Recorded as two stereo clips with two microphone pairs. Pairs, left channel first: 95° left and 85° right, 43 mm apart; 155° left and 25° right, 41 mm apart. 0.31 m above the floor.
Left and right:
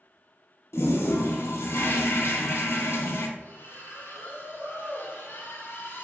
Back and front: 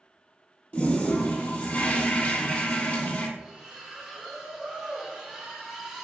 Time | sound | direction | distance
0.7 | a toilet flushing | 100° left | 0.7 m
3.4 | a splash | 55° left | 1.0 m